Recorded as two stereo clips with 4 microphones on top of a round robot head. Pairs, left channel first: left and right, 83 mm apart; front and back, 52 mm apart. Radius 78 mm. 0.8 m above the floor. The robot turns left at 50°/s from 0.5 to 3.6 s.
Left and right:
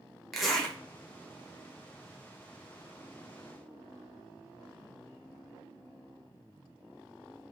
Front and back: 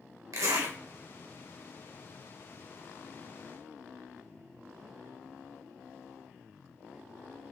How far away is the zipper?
About 1.3 m.